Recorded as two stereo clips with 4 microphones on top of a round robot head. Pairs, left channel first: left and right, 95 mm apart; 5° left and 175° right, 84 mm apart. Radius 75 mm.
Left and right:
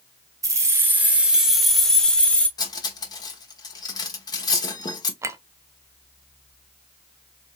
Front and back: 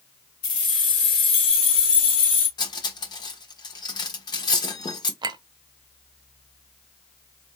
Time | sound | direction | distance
0.4 | keys jangling | 35° right | 1.1 m
2.6 | cutlery clinking | 40° left | 1.1 m
5.2 | a clink | 150° right | 0.6 m